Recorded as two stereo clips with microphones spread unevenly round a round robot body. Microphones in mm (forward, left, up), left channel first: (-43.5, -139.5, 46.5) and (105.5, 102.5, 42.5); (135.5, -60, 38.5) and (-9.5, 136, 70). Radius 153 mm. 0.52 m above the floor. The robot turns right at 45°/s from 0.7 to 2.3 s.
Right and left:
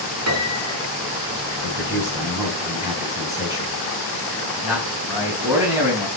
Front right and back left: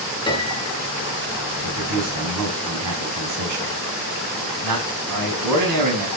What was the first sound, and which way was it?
A piano, 20° left.